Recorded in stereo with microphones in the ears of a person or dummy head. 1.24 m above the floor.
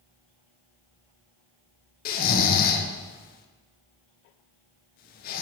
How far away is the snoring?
About 0.7 m.